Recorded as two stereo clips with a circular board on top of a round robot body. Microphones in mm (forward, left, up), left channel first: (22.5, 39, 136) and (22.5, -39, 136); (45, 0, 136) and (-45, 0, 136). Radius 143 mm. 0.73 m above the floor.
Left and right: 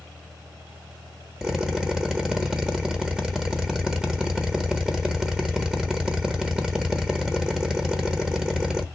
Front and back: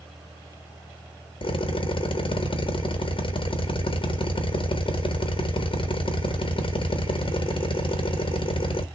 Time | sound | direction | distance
1.4 | a drill | 10° right | 1.2 m